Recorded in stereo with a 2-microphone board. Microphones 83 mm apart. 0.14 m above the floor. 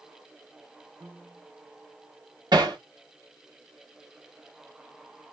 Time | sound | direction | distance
1.0 | a piano | 55° right (ahead or behind) | 4 m
2.5 | hammering | 65° right (ahead or behind) | 4 m